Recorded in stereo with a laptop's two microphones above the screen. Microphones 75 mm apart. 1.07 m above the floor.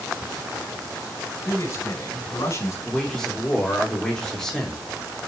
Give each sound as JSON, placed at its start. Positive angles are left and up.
{"t": 1.4, "sound": "a man speaking", "side_deg": 40, "distance_m": 5.5}
{"t": 2.9, "sound": "a man speaking", "side_deg": 5, "distance_m": 3.0}